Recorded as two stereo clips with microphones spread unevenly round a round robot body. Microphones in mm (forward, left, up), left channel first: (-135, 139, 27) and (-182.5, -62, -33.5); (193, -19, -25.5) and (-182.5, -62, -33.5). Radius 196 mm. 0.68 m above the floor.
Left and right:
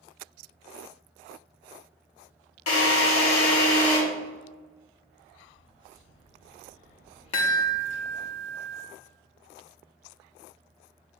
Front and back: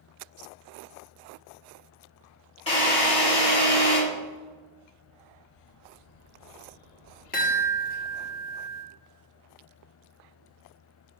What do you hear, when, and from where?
2.7 s a drill: 85° left, 3 m
5.3 s a bird: straight ahead, 1.6 m
7.3 s a chime: 75° left, 1.2 m